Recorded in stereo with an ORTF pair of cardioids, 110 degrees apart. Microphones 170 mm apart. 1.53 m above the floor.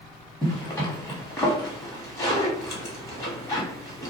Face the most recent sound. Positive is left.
turn(degrees=20)